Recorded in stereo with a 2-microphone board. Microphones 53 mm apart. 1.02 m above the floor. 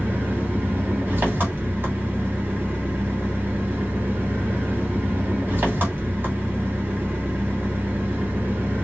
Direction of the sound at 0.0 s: 35° right (ahead or behind).